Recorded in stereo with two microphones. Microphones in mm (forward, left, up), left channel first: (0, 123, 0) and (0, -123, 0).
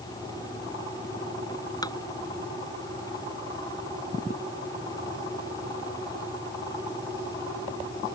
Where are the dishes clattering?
15° left (ahead or behind).